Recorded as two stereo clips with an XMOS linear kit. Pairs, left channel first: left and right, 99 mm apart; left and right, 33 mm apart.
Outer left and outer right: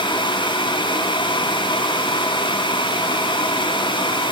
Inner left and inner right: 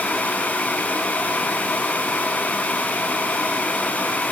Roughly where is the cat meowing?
I don't hear a cat meowing.